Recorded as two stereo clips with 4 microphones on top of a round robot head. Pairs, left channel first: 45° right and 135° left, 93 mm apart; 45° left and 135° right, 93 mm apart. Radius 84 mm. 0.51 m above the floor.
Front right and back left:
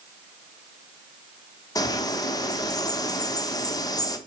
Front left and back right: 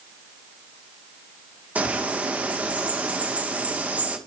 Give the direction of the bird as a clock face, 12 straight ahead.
2 o'clock.